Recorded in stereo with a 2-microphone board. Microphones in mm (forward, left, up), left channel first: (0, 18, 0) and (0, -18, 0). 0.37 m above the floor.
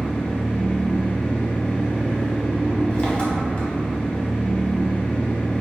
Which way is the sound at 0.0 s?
25° left (ahead or behind).